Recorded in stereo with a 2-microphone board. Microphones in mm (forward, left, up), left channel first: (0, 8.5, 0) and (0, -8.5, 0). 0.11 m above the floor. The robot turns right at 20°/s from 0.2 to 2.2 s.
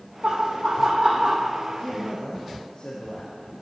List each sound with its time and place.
0.2 s laughter: 75° right (ahead or behind), 4.5 m; by 1.5 s 55° right (ahead or behind), 4.5 m
1.8 s a man speaking: 75° left (ahead or behind), 5.5 m